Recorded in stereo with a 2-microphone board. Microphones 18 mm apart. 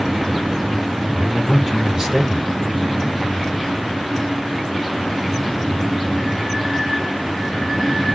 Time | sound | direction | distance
1.1 | a man speaking | 30° right (ahead or behind) | 1.7 m